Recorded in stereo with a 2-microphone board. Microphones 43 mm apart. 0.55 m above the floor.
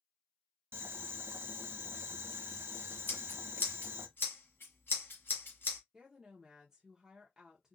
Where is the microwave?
No microwave in this recording.